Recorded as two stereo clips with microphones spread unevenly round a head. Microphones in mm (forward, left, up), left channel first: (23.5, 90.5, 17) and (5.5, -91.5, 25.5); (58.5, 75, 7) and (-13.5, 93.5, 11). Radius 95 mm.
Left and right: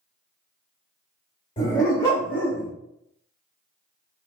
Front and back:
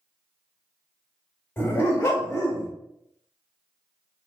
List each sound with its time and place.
1.6 s a dog barking: 30° left, 1.4 m; by 2.7 s 5° right, 1.8 m